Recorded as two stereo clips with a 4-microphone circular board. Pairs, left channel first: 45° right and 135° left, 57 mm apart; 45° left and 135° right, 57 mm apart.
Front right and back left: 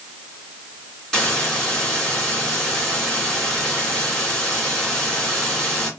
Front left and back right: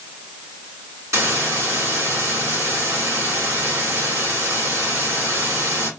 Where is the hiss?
135° right, 2.5 m.